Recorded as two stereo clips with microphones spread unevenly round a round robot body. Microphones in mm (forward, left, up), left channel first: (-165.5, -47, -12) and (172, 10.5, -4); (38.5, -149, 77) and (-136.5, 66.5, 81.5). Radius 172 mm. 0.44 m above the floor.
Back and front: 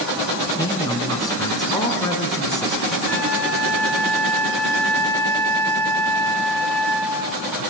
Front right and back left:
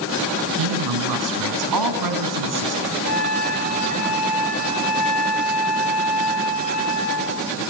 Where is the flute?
85° right, 5.5 m.